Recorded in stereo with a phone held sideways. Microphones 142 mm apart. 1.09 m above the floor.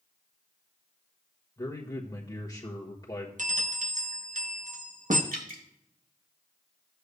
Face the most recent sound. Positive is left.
turn(degrees=-75)  # may be behind; listen again after turning